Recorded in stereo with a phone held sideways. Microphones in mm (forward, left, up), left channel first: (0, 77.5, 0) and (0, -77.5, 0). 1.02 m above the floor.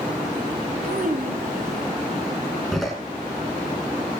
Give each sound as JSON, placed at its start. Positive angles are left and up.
{"t": 0.8, "sound": "a child speaking", "side_deg": -65, "distance_m": 4.5}
{"t": 2.7, "sound": "a door slam", "side_deg": 0, "distance_m": 7.5}